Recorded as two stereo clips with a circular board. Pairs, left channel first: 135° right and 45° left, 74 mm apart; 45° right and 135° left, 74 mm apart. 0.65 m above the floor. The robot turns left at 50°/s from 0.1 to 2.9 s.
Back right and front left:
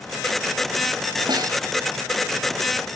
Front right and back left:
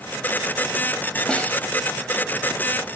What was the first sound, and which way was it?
A snare drum, 30° left.